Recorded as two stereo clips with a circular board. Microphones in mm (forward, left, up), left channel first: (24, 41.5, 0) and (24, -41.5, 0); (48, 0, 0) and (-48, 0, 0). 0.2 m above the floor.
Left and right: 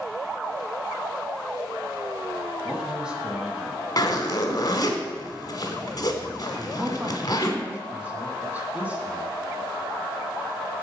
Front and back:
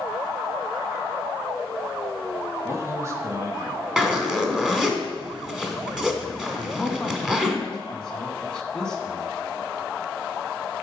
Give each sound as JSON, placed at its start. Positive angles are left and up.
{"t": 2.6, "sound": "a man speaking", "azimuth_deg": -160, "distance_m": 1.3}
{"t": 4.0, "sound": "a zipper", "azimuth_deg": 100, "distance_m": 1.2}
{"t": 6.5, "sound": "a man speaking", "azimuth_deg": -65, "distance_m": 1.5}